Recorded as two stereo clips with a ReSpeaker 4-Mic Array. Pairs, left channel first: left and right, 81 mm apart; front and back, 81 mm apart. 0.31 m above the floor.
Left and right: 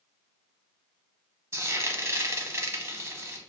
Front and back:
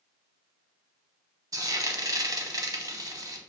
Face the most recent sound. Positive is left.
turn(degrees=-145)